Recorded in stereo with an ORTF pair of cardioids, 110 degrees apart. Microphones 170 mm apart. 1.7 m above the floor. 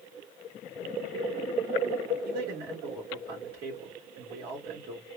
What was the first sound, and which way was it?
A man speaking, 65° right.